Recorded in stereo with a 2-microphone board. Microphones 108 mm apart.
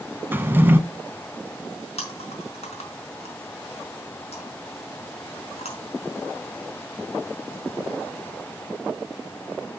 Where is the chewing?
75° left (ahead or behind), 4.5 m.